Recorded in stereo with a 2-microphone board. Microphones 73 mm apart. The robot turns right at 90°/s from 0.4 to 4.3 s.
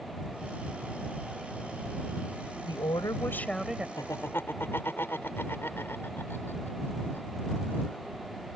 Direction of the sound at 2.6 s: 90° left.